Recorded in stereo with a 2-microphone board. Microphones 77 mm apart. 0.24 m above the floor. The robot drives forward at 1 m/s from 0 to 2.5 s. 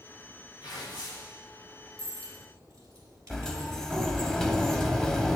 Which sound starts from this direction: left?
Tearing paper, at 0.6 s.